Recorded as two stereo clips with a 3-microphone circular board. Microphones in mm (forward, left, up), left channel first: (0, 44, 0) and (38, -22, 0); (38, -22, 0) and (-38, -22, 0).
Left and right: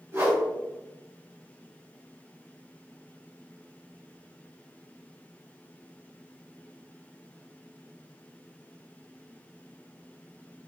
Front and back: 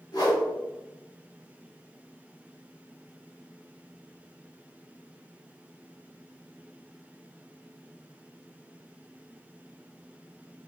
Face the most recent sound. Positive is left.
turn(degrees=-10)